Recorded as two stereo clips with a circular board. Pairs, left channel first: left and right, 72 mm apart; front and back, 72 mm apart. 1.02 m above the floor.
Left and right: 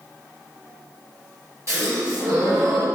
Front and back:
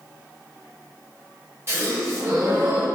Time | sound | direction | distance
1.7 | a gasp | 130° right | 1.5 m